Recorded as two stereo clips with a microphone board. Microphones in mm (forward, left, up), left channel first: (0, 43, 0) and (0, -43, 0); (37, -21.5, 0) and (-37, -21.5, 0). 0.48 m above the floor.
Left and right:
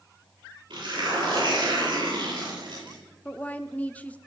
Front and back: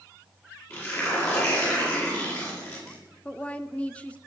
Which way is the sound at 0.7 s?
55° right.